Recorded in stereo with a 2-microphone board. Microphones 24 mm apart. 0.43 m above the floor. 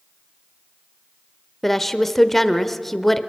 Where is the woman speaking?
5° left (ahead or behind), 1.0 m.